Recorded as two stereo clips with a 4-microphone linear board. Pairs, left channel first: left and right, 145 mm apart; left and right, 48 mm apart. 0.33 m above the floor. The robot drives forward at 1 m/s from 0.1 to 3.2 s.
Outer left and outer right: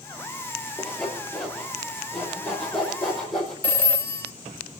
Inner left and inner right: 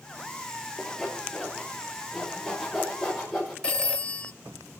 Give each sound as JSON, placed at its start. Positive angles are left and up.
{"t": 0.8, "sound": "sawing", "side_deg": 5, "distance_m": 3.5}
{"t": 3.6, "sound": "a phone ringing", "side_deg": 15, "distance_m": 0.7}